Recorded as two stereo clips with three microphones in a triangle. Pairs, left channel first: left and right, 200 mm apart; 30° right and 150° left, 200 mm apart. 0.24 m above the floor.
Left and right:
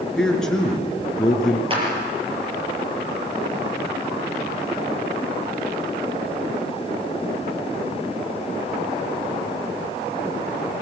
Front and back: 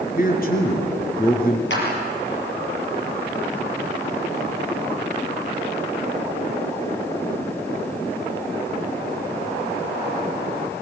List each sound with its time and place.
0.2 s a man speaking: 5° left, 3.5 m
1.7 s a clap: 30° right, 5.5 m